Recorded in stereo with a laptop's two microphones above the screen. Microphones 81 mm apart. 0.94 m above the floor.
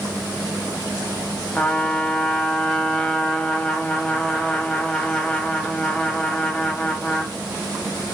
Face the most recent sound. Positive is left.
turn(degrees=10)  # may be behind; listen again after turning